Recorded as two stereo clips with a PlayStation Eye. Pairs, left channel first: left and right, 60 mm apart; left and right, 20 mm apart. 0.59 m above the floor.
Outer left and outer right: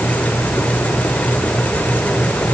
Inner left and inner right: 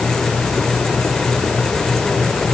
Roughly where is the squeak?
No squeak in this recording.